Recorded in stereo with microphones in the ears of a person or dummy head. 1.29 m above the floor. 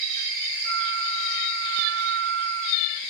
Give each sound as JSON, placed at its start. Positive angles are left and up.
{"t": 0.7, "sound": "a flute", "side_deg": -65, "distance_m": 0.9}